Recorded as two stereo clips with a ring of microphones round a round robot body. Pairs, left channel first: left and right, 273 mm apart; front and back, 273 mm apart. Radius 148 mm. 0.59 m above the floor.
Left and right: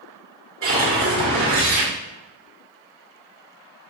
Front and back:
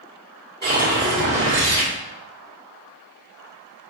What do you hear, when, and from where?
0.6 s a whoosh: 130° right, 1.6 m